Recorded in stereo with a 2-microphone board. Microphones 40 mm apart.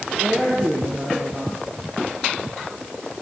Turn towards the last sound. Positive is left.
turn(degrees=-55)  # may be behind; listen again after turning